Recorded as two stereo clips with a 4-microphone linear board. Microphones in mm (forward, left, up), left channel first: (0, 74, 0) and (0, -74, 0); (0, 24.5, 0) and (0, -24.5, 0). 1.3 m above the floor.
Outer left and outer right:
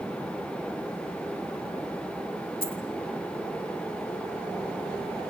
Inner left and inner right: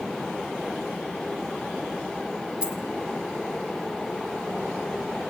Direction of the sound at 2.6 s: 15° right (ahead or behind).